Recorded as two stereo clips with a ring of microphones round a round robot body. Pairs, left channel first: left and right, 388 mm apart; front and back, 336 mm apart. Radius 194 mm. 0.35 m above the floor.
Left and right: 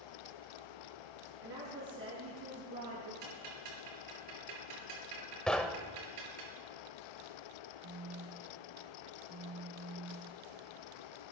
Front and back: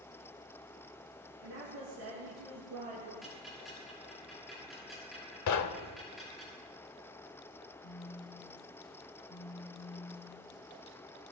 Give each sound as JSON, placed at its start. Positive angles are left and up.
{"t": 1.4, "sound": "a woman speaking", "azimuth_deg": -140, "distance_m": 4.5}
{"t": 3.2, "sound": "ticking", "azimuth_deg": -90, "distance_m": 6.5}
{"t": 5.5, "sound": "knocking", "azimuth_deg": 5, "distance_m": 0.8}
{"t": 7.8, "sound": "a phone buzzing", "azimuth_deg": -40, "distance_m": 0.6}